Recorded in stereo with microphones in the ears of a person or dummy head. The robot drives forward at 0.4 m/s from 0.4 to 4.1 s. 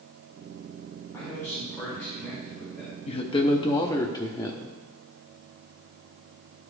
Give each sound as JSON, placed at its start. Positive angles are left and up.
{"t": 1.1, "sound": "a man speaking", "side_deg": 15, "distance_m": 2.0}
{"t": 3.1, "sound": "a woman speaking", "side_deg": 25, "distance_m": 0.6}